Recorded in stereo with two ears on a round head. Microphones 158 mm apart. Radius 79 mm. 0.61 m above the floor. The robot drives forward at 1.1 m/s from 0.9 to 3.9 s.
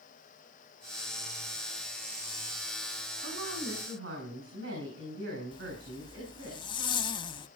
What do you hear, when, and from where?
3.2 s a woman speaking: 80° right, 7 m
5.5 s a zipper: 25° left (ahead or behind), 0.7 m